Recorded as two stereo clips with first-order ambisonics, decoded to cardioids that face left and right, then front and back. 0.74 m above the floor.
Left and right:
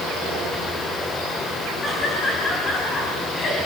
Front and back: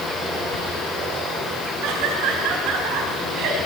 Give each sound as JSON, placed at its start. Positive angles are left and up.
{"t": 1.8, "sound": "laughter", "azimuth_deg": 160, "distance_m": 5.0}